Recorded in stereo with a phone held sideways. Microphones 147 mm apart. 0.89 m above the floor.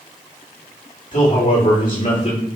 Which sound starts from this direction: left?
A man speaking, at 1.1 s.